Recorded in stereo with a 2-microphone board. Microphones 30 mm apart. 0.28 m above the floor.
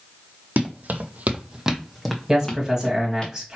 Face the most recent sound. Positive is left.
turn(degrees=-20)  # may be behind; listen again after turning